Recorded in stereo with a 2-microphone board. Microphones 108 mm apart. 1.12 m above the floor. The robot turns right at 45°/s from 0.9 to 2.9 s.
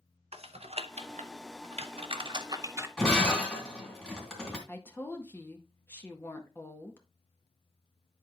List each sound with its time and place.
0.3 s typing on a keyboard: 70° right (ahead or behind), 0.7 m; by 2.9 s 25° right (ahead or behind), 0.7 m
3.0 s breaking glass: 5° left (ahead or behind), 3 m
4.7 s a woman speaking: 20° left (ahead or behind), 1.7 m